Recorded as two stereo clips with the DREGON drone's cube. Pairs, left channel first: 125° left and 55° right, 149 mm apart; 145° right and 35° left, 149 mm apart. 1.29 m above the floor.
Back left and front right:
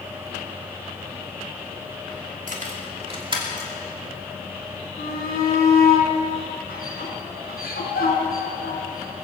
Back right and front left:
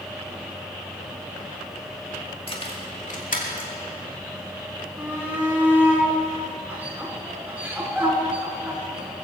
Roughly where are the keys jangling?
Right.